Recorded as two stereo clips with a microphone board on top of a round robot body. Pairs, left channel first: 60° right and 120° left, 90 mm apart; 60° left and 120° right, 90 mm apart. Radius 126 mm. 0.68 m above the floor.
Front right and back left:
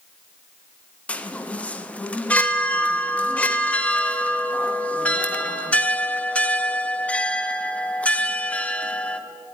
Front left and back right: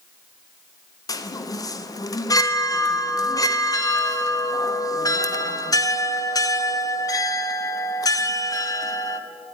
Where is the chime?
15° left, 0.6 m.